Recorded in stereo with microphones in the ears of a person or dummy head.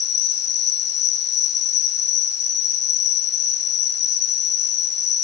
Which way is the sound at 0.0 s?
50° left (ahead or behind).